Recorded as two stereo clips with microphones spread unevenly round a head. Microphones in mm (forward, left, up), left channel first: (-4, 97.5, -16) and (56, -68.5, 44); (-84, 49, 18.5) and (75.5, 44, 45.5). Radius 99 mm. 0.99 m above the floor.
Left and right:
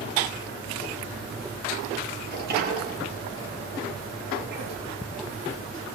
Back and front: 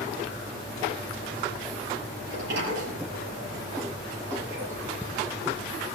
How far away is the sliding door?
About 6.5 m.